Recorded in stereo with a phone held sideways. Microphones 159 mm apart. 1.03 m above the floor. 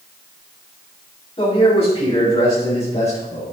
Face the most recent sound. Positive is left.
turn(degrees=50)  # may be behind; listen again after turning